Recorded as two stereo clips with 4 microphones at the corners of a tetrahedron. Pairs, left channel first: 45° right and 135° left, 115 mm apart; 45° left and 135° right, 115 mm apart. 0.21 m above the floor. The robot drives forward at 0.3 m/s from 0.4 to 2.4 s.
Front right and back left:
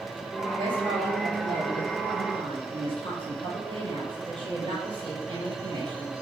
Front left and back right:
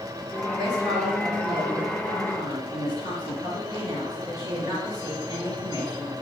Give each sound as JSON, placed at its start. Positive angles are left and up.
{"t": 0.6, "sound": "a woman speaking", "azimuth_deg": 170, "distance_m": 4.0}